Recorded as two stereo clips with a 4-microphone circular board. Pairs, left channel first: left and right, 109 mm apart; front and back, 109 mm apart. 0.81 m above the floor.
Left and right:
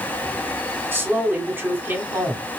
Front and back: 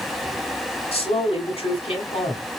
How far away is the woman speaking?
About 1.9 m.